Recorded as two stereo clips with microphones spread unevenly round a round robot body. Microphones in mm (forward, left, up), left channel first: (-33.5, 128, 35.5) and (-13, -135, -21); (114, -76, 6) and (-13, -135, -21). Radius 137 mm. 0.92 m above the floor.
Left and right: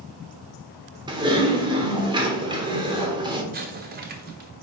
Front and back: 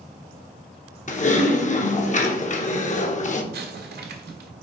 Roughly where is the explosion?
Behind right.